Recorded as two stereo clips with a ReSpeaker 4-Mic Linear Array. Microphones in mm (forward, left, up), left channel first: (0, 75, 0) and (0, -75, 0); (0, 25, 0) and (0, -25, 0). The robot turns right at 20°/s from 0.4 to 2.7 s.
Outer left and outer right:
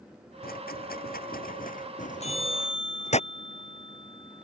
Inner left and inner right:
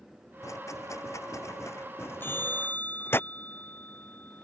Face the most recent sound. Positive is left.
turn(degrees=35)  # may be behind; listen again after turning